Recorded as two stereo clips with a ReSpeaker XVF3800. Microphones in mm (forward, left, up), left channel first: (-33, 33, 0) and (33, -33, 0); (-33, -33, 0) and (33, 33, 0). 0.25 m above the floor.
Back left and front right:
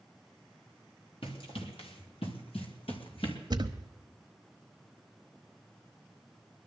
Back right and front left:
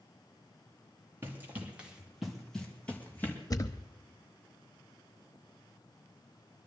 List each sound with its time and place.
1.2 s running footsteps: 110° left, 3 m; by 3.4 s 160° left, 3.5 m
3.5 s a thud: 85° right, 0.9 m